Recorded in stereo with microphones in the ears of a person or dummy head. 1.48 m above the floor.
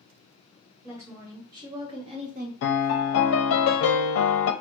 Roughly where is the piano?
Left.